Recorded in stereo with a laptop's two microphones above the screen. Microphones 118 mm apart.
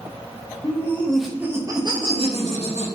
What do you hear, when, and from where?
0.6 s laughter: 25° left (ahead or behind), 0.8 m; by 2.9 s 70° right (ahead or behind), 1.0 m